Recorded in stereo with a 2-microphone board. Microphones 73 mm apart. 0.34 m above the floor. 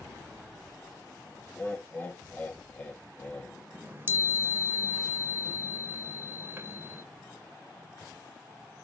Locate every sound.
1.5 s laughter: 20° left (ahead or behind), 1.4 m
3.7 s a chime: 30° right (ahead or behind), 1.4 m